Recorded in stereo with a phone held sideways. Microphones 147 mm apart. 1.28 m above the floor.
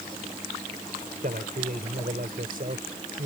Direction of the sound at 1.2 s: 70° right (ahead or behind).